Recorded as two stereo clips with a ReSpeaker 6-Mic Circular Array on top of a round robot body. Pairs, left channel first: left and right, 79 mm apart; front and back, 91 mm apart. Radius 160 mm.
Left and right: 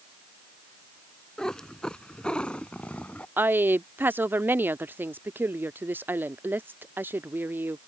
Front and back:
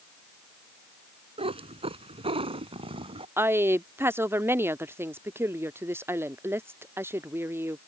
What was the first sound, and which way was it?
A cat meowing, 175° left.